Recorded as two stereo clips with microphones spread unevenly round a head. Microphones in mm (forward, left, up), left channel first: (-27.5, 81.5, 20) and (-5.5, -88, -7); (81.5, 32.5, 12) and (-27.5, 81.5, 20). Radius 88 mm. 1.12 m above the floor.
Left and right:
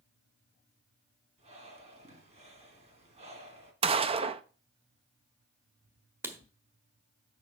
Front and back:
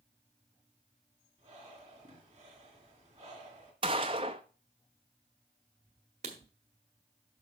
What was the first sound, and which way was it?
Breathing, 135° right.